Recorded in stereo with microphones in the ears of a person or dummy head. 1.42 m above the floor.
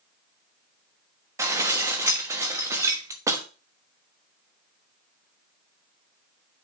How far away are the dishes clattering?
About 1.2 m.